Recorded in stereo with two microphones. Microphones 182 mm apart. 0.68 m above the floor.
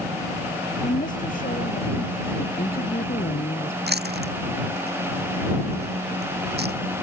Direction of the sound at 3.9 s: 70° right (ahead or behind).